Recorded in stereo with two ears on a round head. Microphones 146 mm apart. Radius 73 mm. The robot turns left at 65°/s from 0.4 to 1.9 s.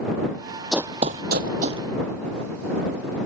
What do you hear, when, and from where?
0.7 s running footsteps: centre (ahead or behind); by 1.8 s 30° right (ahead or behind)